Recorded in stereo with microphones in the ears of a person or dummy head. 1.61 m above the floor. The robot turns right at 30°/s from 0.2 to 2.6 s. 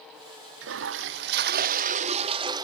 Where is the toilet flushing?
80° right; by 2.6 s 25° right.